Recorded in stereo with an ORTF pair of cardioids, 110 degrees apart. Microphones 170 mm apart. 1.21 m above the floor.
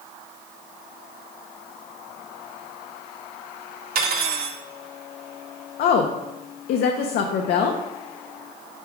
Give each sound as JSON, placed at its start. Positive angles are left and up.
{"t": 4.0, "sound": "cutlery clinking", "azimuth_deg": -65, "distance_m": 1.3}
{"t": 5.8, "sound": "a woman speaking", "azimuth_deg": 65, "distance_m": 0.7}